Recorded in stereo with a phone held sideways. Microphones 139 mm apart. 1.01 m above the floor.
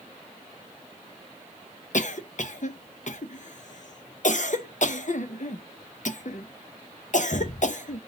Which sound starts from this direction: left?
A cough, at 1.9 s.